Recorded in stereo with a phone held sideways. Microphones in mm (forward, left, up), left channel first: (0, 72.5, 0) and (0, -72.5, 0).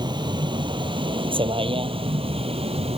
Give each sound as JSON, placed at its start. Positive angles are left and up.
{"t": 0.0, "sound": "a vehicle", "side_deg": -30}